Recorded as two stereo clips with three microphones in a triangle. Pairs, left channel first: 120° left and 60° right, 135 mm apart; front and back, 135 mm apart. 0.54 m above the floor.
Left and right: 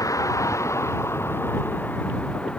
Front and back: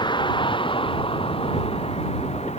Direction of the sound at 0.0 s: 55° left.